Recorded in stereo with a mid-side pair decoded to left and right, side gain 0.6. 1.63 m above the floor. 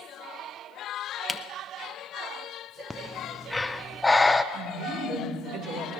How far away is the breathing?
About 0.7 m.